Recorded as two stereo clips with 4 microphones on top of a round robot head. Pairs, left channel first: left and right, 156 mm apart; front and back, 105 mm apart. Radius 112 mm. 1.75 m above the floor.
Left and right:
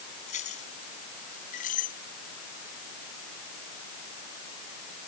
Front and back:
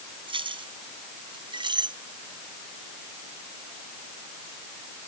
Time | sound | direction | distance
0.3 | keys jangling | 145° left | ?